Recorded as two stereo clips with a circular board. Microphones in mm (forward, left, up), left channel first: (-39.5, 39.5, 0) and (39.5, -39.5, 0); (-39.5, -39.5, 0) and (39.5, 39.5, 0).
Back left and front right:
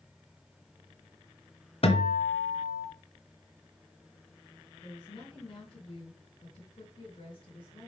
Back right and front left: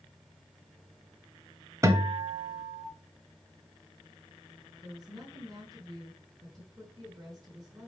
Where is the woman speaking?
95° left, 3.5 m.